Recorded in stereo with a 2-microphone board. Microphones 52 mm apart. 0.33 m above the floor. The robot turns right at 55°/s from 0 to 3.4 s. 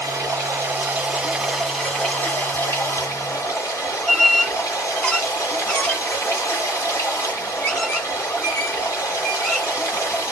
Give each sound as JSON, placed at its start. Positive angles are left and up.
{"t": 0.0, "sound": "running water", "azimuth_deg": -85, "distance_m": 1.5}
{"t": 4.1, "sound": "a squeak", "side_deg": 15, "distance_m": 0.8}